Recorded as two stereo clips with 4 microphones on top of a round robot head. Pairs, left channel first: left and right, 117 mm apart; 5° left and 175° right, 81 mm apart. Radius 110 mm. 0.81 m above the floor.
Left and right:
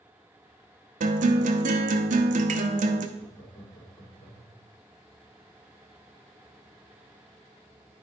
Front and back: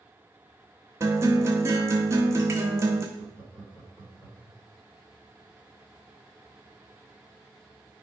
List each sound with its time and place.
1.0 s a guitar: 110° right, 0.7 m
3.2 s laughter: 80° left, 3.5 m